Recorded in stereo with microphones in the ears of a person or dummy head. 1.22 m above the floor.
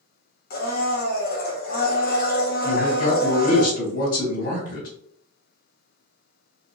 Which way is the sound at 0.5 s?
50° left (ahead or behind).